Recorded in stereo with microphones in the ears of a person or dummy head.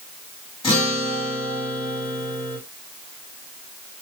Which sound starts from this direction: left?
A guitar, at 0.6 s.